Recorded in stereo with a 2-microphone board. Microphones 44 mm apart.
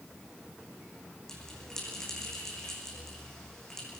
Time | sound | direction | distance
1.3 | a bell | 15° left (ahead or behind) | 7 m